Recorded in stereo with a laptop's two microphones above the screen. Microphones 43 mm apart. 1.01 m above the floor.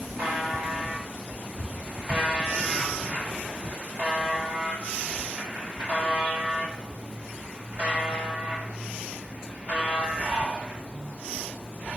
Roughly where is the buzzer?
Right.